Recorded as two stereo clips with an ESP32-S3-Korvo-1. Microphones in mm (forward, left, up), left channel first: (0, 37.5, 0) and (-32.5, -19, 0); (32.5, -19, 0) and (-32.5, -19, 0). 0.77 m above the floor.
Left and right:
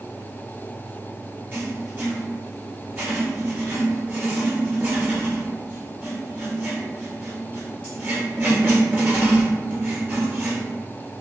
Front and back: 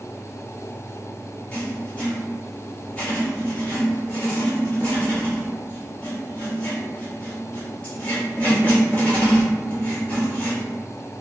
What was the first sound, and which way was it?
Writing, 70° right.